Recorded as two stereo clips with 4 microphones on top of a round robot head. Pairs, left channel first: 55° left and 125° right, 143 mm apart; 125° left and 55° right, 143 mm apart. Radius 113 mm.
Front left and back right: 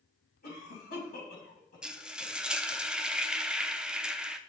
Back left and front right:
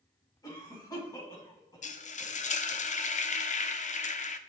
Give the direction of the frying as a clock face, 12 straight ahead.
7 o'clock.